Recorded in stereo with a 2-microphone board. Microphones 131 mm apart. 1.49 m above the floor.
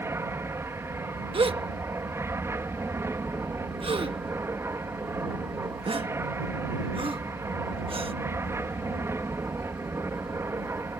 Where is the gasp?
45° right (ahead or behind).